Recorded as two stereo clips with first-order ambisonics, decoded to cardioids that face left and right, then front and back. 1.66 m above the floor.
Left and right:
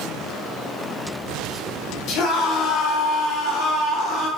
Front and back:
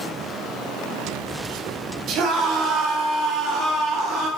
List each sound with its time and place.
2.1 s a scream: 130° left, 2 m; by 4.3 s 135° left, 3 m